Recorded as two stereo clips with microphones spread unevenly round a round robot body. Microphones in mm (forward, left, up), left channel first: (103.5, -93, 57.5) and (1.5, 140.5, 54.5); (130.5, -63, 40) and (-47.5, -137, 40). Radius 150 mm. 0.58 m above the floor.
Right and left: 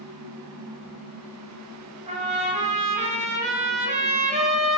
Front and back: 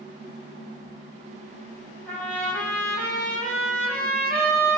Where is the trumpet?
95° left, 1.2 m.